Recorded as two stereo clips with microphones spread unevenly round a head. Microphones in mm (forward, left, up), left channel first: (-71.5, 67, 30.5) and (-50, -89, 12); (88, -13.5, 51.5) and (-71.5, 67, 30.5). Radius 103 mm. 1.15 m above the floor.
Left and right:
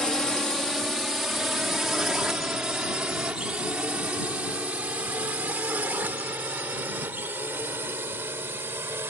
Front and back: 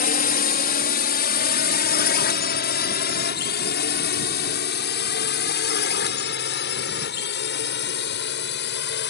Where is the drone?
10° left; by 9.1 s straight ahead.